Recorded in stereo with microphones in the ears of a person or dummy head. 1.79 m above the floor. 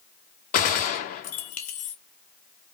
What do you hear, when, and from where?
0.5 s a gunshot: 40° left (ahead or behind), 0.6 m